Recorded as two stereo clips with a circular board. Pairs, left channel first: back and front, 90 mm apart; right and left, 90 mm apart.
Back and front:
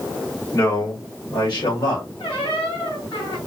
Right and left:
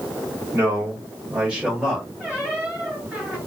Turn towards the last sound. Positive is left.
turn(degrees=160)